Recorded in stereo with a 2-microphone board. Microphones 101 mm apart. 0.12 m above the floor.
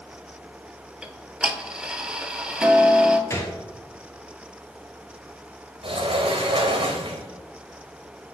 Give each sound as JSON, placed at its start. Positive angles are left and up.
{"t": 1.0, "sound": "ticking", "side_deg": -10, "distance_m": 0.5}
{"t": 3.3, "sound": "a gunshot", "side_deg": 30, "distance_m": 1.1}
{"t": 5.8, "sound": "a sliding door", "side_deg": -65, "distance_m": 1.0}